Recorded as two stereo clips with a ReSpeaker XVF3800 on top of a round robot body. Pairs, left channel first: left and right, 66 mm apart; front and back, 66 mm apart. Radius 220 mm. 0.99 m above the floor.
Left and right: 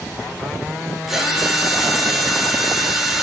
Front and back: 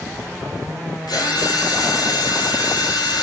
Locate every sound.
1.1 s a drill: 5° right, 8.5 m